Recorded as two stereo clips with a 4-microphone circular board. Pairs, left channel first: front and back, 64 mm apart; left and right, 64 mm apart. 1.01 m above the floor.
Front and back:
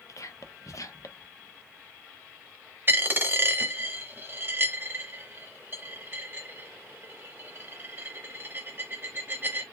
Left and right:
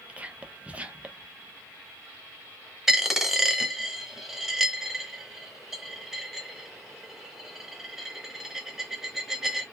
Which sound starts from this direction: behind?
A dropped coin, at 2.9 s.